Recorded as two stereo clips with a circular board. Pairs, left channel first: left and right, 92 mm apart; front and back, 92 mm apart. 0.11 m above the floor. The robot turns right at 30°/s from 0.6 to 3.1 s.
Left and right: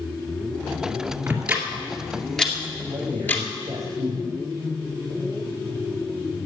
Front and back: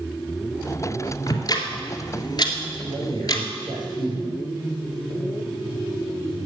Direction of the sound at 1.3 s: 25° right.